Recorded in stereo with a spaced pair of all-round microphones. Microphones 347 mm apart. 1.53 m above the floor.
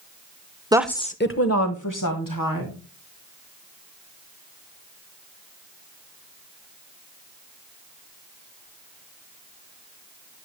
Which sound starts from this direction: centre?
A woman speaking, at 0.7 s.